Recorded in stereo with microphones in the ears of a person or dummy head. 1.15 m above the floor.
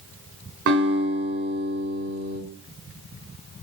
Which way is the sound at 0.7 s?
60° right (ahead or behind).